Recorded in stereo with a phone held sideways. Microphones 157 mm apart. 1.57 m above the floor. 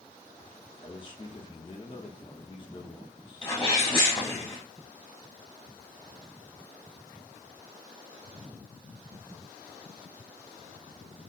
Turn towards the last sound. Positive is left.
turn(degrees=30)  # may be behind; listen again after turning